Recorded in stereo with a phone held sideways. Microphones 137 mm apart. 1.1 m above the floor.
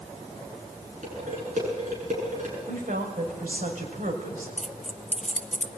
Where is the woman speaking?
75° right (ahead or behind), 6 m.